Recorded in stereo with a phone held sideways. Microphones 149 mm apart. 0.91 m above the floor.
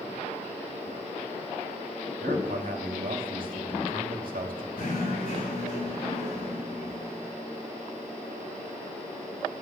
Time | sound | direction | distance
2.2 | a man speaking | 75° right (ahead or behind) | 1.6 m
4.8 | knocking | 75° left (ahead or behind) | 5.5 m